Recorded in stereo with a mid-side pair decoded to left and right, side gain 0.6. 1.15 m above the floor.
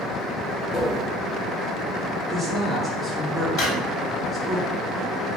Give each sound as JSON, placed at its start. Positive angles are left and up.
{"t": 0.7, "sound": "tapping", "azimuth_deg": 15, "distance_m": 1.5}
{"t": 2.3, "sound": "a woman speaking", "azimuth_deg": -20, "distance_m": 1.6}
{"t": 3.6, "sound": "a drawer", "azimuth_deg": 65, "distance_m": 1.7}